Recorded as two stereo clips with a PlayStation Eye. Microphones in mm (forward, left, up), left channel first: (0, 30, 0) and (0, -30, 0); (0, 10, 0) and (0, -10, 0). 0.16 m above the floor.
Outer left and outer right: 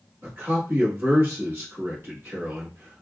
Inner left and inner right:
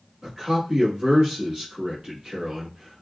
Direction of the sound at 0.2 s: 45° right (ahead or behind).